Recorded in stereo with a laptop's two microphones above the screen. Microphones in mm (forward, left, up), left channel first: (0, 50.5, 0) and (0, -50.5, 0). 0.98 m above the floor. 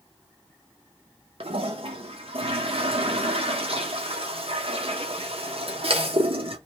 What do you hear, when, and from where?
1.4 s a toilet flushing: 70° right (ahead or behind), 0.6 m